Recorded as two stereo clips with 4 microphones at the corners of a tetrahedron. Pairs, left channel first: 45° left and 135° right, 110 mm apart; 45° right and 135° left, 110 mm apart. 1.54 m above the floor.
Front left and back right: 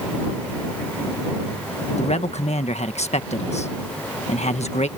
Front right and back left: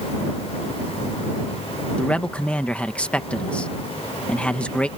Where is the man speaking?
35° left.